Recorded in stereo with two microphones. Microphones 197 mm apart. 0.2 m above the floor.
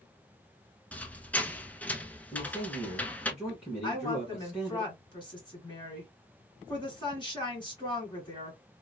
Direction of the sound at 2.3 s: 5° right (ahead or behind).